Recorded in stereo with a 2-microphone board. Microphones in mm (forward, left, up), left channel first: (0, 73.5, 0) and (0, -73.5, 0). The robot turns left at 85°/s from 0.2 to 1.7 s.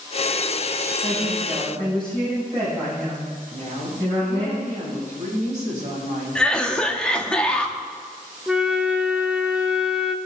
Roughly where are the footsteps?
No footsteps in this recording.